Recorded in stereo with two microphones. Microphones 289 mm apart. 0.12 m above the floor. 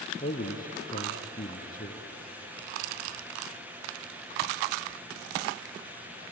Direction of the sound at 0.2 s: 30° left (ahead or behind).